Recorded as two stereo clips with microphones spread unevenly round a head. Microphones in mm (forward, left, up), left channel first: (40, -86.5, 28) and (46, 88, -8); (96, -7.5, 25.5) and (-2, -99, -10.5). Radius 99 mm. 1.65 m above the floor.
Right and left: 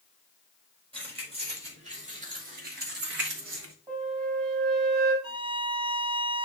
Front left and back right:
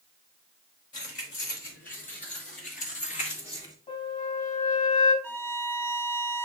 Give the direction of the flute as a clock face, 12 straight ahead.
11 o'clock.